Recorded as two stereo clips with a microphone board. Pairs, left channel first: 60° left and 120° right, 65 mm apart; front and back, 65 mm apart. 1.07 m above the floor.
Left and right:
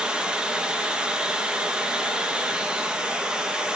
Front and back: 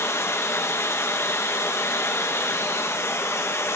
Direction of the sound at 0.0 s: 45° right.